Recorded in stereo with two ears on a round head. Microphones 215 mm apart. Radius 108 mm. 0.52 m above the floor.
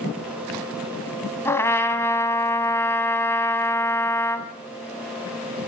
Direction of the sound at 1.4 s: 10° left (ahead or behind).